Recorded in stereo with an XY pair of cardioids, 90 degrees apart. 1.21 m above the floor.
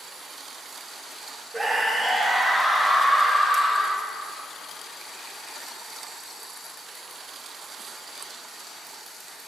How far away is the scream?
About 1.0 m.